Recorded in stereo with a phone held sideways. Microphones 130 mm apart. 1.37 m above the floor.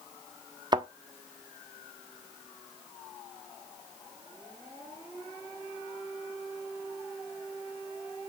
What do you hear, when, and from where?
0.7 s a thud: 35° right (ahead or behind), 1.1 m